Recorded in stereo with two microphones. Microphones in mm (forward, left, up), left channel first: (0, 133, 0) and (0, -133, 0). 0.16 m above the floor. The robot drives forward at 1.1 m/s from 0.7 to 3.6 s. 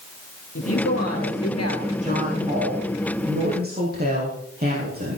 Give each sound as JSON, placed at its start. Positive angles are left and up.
{"t": 0.6, "sound": "a woman speaking", "side_deg": 60, "distance_m": 3.0}
{"t": 2.0, "sound": "a woman speaking", "side_deg": -30, "distance_m": 7.0}